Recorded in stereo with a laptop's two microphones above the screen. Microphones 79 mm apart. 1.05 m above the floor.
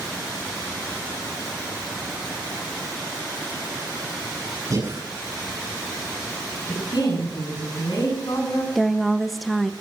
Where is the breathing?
45° right (ahead or behind), 7.5 m.